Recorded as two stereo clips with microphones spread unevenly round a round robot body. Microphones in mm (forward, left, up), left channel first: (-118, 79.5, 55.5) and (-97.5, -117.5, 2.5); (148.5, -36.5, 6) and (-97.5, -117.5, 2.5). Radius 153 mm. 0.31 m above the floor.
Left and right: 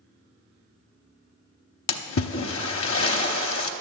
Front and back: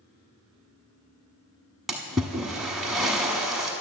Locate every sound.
1.9 s a splash: 110° left, 0.9 m